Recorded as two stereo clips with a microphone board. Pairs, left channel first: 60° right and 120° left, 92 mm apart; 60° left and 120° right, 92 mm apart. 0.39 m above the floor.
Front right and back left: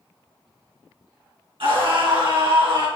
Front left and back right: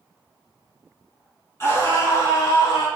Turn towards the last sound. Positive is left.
turn(degrees=90)